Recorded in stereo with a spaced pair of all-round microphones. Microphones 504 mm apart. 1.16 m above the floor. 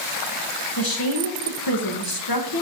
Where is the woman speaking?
45° left (ahead or behind), 1.3 m.